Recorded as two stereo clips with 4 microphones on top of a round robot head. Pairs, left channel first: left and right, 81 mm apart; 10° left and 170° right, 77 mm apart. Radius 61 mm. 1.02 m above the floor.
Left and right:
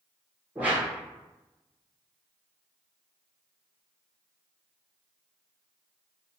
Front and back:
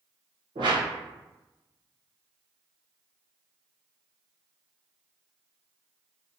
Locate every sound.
0.6 s a whoosh: 160° right, 0.9 m